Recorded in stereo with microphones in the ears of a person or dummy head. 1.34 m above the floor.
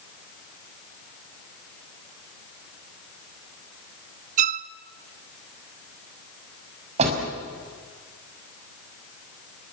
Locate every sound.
4.4 s a violin: 40° right (ahead or behind), 0.6 m
7.0 s a door slam: 40° right (ahead or behind), 6 m